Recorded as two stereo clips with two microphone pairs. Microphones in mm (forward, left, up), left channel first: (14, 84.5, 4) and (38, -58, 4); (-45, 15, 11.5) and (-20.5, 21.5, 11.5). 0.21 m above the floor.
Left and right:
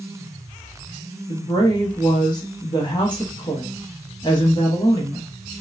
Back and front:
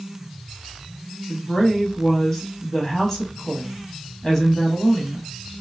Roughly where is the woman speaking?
Behind left.